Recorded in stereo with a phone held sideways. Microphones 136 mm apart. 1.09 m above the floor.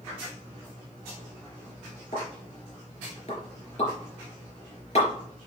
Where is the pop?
55° left (ahead or behind), 4 m.